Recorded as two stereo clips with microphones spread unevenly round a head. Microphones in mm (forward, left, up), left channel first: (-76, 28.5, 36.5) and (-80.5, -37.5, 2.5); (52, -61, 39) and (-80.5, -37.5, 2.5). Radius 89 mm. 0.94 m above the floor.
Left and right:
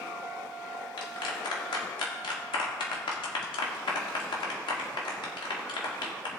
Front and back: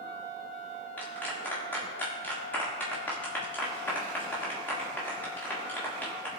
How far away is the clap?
About 1.7 m.